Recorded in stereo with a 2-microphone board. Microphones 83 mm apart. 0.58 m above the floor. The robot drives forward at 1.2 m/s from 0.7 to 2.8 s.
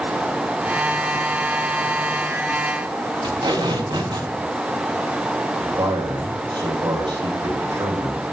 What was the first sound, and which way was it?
Tape being pulled, 80° right.